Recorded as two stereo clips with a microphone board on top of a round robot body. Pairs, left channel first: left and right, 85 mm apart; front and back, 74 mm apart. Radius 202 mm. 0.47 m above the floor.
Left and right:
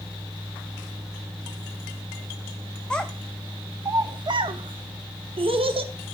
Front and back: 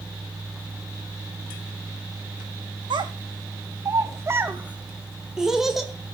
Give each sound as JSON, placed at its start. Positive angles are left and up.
{"t": 2.9, "sound": "a child speaking", "azimuth_deg": 170, "distance_m": 0.7}